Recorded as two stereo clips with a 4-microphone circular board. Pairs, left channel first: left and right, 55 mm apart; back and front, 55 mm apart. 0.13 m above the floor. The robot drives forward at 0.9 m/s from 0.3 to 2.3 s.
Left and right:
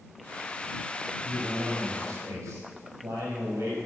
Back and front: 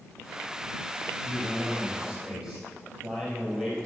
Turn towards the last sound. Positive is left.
turn(degrees=-80)